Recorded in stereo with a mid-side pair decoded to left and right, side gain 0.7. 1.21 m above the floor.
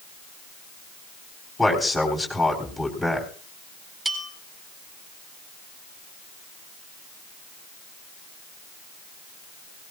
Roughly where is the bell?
Ahead.